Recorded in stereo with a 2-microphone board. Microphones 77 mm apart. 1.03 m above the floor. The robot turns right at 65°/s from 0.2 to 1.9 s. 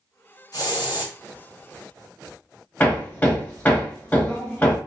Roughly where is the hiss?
Ahead left.